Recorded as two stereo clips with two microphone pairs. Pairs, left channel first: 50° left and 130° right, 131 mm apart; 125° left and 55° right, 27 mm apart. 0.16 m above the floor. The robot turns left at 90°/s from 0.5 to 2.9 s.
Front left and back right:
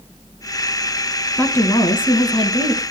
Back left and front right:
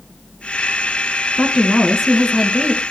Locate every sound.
1.4 s a woman speaking: 125° left, 1.9 m; by 2.8 s 5° right, 1.9 m